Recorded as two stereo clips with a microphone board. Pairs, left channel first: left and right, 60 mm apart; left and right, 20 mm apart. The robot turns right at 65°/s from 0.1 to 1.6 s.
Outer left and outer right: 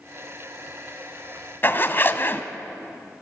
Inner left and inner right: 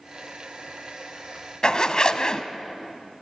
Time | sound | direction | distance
1.6 | a zipper | 35° left (ahead or behind) | 1.1 m